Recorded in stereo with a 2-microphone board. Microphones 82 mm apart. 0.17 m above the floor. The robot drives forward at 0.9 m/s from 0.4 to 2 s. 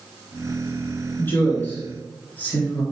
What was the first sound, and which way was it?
A woman speaking, 25° left (ahead or behind).